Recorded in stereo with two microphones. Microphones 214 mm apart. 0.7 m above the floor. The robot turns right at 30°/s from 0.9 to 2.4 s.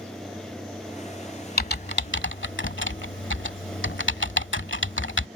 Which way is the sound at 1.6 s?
50° left (ahead or behind).